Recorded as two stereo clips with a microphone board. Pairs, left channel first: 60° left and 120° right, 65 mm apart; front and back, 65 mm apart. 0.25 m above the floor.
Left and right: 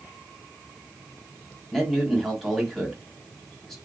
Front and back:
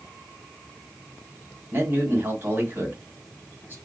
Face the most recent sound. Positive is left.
turn(degrees=145)